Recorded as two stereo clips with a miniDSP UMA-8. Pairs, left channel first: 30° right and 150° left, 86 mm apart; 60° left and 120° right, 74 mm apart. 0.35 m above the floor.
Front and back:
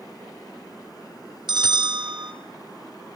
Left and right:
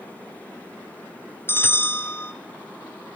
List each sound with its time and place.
1.5 s a bell: 120° left, 1.8 m